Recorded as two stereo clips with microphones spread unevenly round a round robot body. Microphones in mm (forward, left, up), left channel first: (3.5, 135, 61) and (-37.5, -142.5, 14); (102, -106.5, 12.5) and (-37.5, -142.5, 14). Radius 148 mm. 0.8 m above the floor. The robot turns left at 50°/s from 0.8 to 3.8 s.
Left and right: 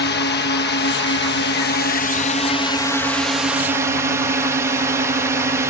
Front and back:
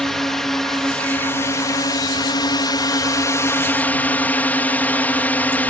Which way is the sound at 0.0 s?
100° left.